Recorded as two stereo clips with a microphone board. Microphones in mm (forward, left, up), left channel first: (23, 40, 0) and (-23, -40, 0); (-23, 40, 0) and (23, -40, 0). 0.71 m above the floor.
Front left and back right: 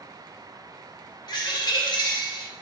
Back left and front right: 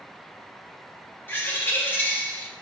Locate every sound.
1.3 s a bird: 55° left, 0.8 m